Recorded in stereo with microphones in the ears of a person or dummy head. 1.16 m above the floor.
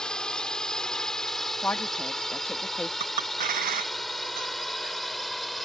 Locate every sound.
0.0 s a drone: 10° left (ahead or behind); by 5.7 s 5° left (ahead or behind)
1.6 s a woman speaking: 10° left (ahead or behind)
3.0 s a clink: 55° right (ahead or behind)